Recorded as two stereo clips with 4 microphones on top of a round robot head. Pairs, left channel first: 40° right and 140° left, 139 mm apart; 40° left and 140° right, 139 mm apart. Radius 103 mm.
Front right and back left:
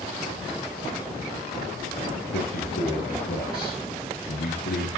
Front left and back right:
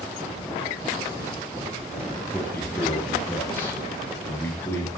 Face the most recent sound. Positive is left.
turn(degrees=-35)